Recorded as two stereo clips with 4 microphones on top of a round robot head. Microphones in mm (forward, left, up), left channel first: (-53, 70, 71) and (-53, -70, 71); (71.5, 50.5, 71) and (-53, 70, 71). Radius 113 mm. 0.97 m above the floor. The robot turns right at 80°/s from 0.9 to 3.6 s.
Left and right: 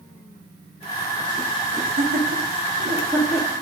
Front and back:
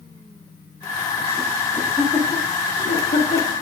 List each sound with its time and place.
1.7 s laughter: 125° right, 1.5 m; by 3.5 s 15° left, 1.5 m